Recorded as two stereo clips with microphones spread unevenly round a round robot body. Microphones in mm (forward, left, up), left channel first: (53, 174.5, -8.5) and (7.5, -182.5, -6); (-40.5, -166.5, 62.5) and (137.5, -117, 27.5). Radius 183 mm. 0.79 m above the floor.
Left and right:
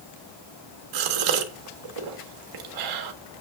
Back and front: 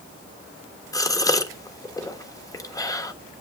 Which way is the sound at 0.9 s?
85° right.